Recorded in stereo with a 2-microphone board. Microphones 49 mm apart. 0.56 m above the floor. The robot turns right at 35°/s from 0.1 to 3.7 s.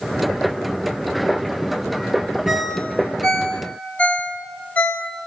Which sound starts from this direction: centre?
A ringtone, at 2.5 s.